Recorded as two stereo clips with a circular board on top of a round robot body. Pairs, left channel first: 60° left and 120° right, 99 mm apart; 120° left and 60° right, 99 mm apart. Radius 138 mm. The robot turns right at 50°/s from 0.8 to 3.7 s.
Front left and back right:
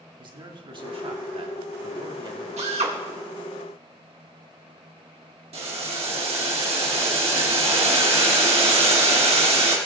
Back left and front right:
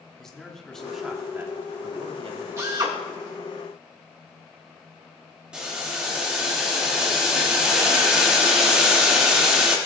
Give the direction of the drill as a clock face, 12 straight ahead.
4 o'clock.